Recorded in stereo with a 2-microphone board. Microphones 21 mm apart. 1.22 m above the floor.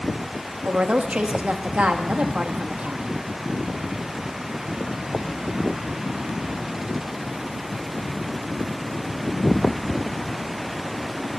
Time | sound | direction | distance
0.6 | a woman speaking | 85° right | 1.5 m